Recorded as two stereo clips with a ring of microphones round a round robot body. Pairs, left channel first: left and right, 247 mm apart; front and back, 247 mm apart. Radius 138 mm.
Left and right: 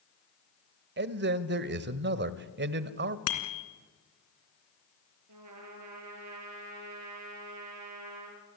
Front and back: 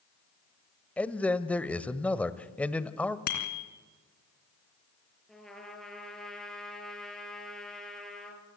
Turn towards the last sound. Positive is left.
turn(degrees=-90)